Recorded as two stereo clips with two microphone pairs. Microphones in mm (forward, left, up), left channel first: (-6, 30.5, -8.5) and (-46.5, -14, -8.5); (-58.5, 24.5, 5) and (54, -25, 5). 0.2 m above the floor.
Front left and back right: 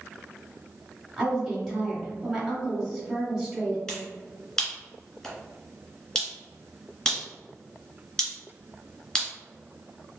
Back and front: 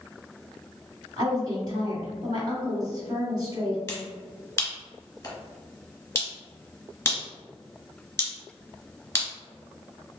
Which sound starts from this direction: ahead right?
A woman speaking, at 1.2 s.